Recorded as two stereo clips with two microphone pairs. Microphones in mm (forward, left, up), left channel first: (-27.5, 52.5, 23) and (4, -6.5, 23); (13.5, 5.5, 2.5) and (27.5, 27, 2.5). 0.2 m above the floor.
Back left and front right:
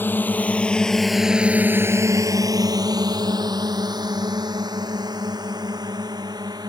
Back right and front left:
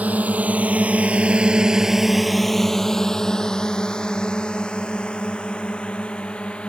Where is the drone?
60° left; by 6.7 s 75° right.